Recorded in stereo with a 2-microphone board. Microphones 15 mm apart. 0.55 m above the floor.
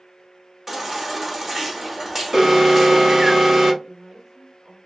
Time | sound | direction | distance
0.7 | a baby crying | 20° right (ahead or behind) | 0.9 m
2.3 | an alarm | 35° right (ahead or behind) | 2 m
3.8 | a woman speaking | 50° right (ahead or behind) | 1.9 m